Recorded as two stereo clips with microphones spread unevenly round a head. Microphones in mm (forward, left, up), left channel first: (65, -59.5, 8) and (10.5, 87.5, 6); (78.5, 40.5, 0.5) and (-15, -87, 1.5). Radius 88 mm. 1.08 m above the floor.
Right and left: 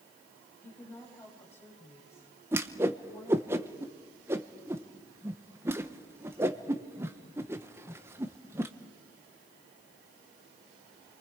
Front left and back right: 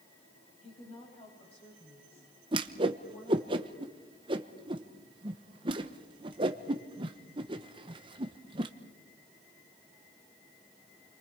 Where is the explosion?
I don't hear an explosion.